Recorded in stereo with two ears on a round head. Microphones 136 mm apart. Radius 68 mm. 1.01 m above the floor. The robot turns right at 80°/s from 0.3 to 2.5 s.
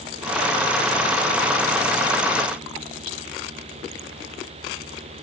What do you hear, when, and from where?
Only background noise.